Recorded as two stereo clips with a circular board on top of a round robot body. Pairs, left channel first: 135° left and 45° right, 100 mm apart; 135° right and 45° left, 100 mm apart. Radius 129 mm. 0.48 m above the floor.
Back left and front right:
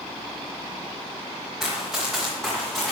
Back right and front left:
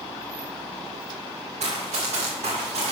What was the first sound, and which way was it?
Running footsteps, 45° left.